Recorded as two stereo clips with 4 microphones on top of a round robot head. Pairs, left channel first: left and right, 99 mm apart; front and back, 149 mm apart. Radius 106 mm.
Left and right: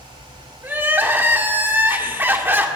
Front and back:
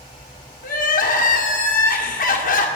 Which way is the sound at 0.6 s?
20° right.